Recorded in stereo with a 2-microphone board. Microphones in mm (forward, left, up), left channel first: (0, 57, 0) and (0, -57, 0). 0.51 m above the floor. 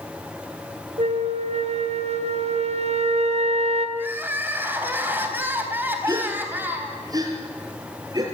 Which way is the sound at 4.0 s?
15° right (ahead or behind).